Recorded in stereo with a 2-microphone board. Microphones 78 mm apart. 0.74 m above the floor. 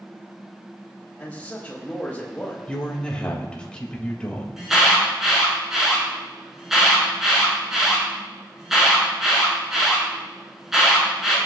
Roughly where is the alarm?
Centre.